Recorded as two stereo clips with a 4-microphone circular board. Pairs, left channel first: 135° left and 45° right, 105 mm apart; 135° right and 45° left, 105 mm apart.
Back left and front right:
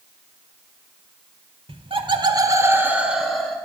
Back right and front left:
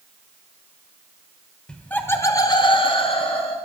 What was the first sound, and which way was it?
Laughter, 55° right.